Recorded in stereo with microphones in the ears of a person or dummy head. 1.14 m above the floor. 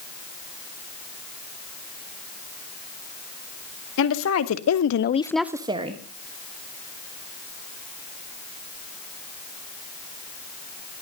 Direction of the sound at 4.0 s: 70° left (ahead or behind).